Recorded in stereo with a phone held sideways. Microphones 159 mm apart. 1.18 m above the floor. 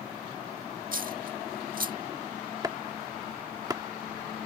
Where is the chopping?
25° right (ahead or behind).